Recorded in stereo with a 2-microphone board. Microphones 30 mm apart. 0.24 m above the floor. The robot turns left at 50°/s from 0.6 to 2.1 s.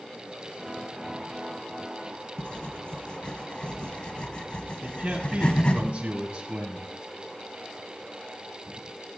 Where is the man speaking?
40° right (ahead or behind), 1.4 m.